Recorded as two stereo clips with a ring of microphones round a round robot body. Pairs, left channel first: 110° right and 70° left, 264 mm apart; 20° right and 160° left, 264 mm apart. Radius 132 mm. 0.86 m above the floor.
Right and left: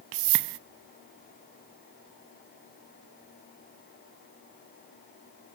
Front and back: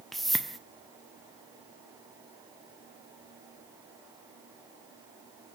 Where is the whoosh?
65° left, 0.6 m.